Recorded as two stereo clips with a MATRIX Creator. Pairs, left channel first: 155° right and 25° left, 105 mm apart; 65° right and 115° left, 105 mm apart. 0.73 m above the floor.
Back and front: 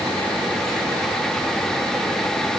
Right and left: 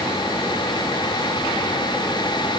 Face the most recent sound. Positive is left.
No sound to turn to.